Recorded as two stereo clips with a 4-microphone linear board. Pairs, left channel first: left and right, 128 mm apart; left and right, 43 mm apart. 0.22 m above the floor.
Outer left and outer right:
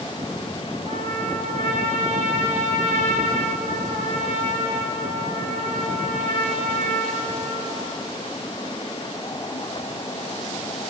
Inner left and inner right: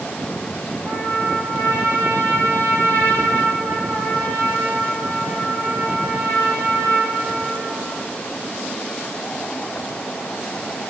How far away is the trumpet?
About 9 m.